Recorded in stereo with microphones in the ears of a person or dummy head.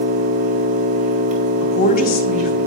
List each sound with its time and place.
0.0 s an engine running: 45° right (ahead or behind), 1.5 m
1.6 s a woman speaking: 45° left (ahead or behind), 0.7 m